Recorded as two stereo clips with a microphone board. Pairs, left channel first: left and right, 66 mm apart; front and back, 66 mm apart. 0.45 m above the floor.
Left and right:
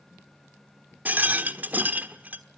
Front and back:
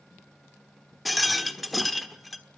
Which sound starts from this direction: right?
A rattle, at 1.1 s.